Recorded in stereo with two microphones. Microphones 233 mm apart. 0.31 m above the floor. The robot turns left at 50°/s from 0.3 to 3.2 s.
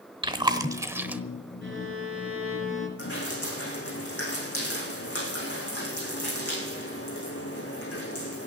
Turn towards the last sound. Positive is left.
turn(degrees=80)